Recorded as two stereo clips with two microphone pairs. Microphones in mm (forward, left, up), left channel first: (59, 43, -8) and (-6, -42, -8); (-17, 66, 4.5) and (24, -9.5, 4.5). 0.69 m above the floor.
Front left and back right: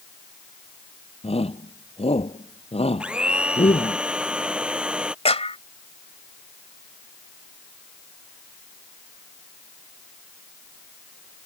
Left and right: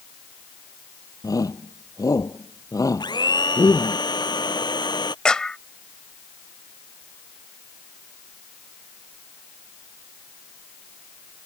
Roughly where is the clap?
Ahead left.